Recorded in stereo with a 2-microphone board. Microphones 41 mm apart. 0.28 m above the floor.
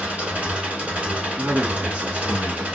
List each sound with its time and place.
0.0 s an engine running: 30° right (ahead or behind), 1.3 m
1.4 s a man speaking: 30° right (ahead or behind), 1.9 m